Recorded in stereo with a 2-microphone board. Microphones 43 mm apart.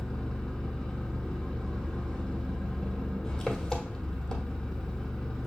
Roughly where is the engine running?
Centre.